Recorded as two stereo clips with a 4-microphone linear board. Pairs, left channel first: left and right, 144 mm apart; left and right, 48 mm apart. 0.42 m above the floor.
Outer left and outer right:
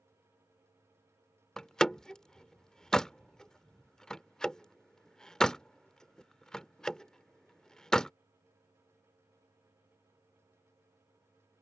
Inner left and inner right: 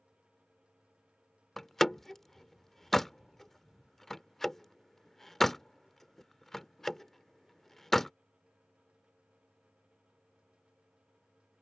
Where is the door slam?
5° left (ahead or behind).